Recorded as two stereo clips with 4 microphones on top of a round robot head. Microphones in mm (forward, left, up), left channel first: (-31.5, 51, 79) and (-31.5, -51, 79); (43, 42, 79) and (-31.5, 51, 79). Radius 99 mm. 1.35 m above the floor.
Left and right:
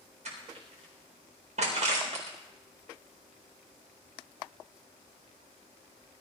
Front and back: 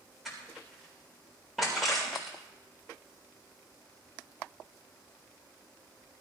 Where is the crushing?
100° right, 4 m.